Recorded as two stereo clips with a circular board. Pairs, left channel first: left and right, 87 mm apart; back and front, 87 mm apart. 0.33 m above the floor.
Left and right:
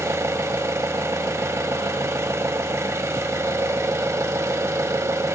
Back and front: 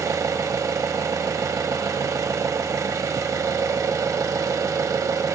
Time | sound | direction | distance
0.0 | an engine running | 40° right | 0.8 m